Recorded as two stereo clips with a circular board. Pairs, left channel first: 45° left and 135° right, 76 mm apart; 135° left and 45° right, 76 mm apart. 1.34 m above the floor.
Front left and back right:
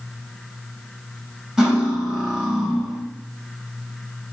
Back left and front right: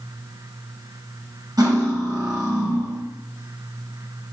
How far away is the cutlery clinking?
About 0.9 m.